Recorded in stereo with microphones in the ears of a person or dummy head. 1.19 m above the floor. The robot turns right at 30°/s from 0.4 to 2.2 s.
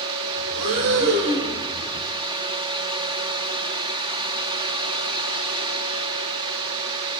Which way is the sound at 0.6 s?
85° right.